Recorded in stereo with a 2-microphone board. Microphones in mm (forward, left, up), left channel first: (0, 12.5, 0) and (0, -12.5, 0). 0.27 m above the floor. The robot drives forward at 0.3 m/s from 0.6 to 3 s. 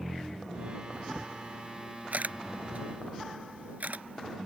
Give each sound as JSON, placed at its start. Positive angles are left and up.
{"t": 0.9, "sound": "a camera shutter", "side_deg": -60}